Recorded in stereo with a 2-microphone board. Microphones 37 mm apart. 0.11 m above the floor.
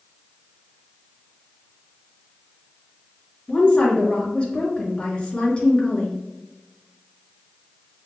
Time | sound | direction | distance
3.5 | a woman speaking | 25° left (ahead or behind) | 1.6 m